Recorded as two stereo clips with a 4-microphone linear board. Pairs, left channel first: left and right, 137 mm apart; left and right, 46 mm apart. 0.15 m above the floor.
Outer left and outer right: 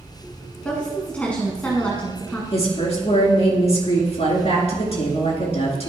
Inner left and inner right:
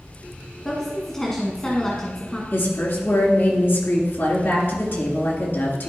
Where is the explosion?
No explosion in this recording.